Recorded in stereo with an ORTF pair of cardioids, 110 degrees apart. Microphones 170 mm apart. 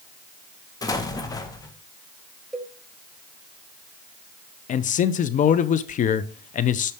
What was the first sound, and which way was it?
An explosion, 20° left.